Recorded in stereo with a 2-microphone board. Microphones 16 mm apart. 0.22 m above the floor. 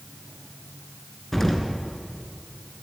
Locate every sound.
1.3 s an explosion: 20° left (ahead or behind), 3.5 m